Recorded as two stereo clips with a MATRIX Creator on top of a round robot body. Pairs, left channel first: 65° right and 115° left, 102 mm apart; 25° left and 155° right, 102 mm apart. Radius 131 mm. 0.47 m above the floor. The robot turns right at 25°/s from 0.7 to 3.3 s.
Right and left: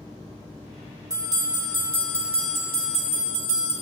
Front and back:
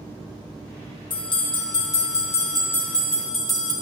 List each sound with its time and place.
1.1 s a bell: 55° left, 1.9 m; by 3.7 s 110° left, 1.9 m